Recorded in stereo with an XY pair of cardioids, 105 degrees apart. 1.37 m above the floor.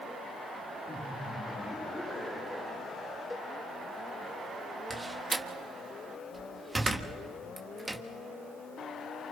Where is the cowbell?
15° left, 3 m.